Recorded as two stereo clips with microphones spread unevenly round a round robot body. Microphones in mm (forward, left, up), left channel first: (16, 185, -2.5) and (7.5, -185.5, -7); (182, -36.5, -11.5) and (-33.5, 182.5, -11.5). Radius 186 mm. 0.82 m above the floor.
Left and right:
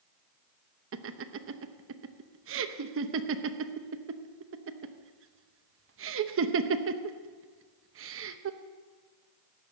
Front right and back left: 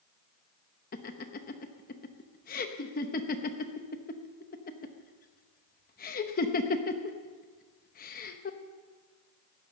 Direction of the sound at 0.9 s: 85° right.